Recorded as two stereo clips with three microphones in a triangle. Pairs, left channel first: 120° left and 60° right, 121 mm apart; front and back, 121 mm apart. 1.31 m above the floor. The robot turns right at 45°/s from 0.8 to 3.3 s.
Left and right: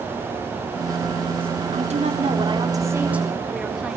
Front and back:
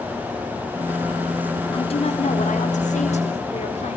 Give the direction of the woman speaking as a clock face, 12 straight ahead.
1 o'clock.